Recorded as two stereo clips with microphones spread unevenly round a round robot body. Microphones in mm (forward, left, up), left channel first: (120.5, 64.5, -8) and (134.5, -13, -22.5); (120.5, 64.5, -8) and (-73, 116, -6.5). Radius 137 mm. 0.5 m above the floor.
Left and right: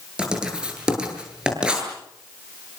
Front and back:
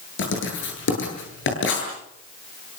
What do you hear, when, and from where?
0.2 s writing: 5° right, 9.5 m